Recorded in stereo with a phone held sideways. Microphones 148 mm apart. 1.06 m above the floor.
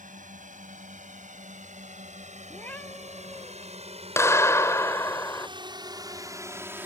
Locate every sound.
0.0 s a drone: 65° right (ahead or behind); by 6.9 s 15° right (ahead or behind)
2.5 s a cat meowing: 15° left (ahead or behind)
4.2 s a clap: 20° left (ahead or behind)